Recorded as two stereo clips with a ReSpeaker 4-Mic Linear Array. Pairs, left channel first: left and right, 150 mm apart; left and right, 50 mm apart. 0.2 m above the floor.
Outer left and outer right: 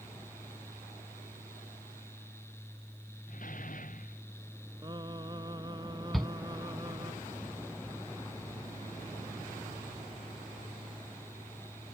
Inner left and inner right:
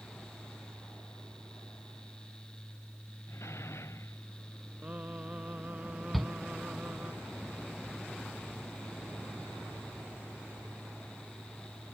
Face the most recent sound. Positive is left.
turn(degrees=0)  # may be behind; listen again after turning